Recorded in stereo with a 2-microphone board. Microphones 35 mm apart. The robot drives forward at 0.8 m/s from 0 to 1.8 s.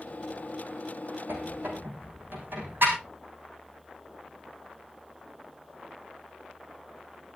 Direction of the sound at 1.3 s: 70° right (ahead or behind).